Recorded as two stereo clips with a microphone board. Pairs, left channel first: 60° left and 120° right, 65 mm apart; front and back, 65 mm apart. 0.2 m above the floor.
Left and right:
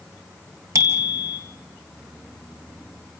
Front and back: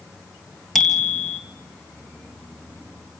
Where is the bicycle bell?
90° right, 3 m.